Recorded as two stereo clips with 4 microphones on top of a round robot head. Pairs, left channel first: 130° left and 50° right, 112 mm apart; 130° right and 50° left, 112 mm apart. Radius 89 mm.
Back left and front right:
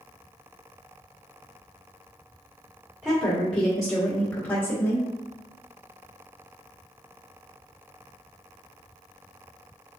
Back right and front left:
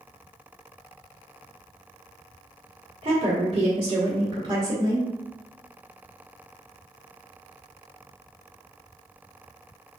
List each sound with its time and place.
3.0 s a woman speaking: 25° left, 1.5 m; by 5.1 s 85° left, 1.1 m